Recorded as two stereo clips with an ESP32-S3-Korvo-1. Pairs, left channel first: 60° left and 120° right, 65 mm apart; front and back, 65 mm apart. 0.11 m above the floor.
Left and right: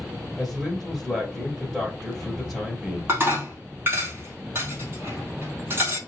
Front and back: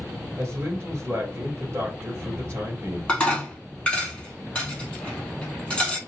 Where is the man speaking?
155° left, 1.9 m.